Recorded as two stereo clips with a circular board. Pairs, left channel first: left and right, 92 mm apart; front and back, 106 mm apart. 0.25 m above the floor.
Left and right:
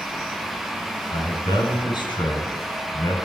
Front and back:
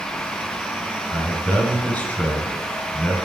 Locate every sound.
1.1 s a man speaking: 75° left, 2.5 m